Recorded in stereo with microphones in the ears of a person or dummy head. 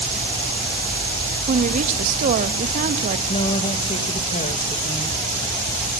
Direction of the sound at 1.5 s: 40° right (ahead or behind).